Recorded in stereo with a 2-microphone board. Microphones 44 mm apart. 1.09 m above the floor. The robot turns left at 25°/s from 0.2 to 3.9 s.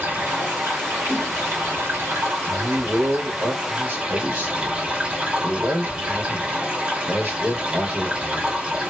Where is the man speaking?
75° right, 1.5 m; by 8.6 s 110° right, 1.5 m.